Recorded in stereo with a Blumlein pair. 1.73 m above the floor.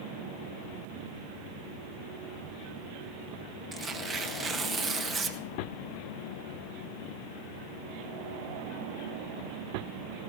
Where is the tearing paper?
20° right, 1.2 m.